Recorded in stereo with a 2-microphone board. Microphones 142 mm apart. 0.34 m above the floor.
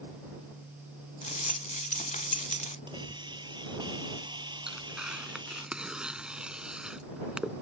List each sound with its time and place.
1.2 s a rattle: 60° left (ahead or behind)
2.9 s a hiss: 30° right (ahead or behind)
4.7 s tearing paper: 5° right (ahead or behind)